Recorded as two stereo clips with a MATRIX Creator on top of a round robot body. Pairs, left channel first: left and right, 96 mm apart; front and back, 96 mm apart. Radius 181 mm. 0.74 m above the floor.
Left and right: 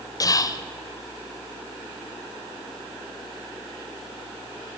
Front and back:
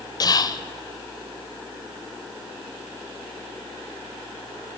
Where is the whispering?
45° left, 0.5 m.